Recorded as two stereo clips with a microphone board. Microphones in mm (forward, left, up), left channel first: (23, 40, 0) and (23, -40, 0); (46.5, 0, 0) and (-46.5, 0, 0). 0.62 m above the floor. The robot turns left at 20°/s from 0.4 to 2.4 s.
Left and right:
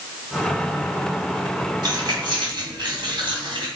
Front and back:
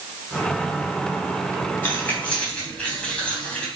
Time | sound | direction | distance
1.8 | keys jangling | 65° right | 3 m